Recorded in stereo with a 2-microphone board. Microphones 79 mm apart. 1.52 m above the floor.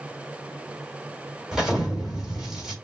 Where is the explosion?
10° right (ahead or behind), 3 m.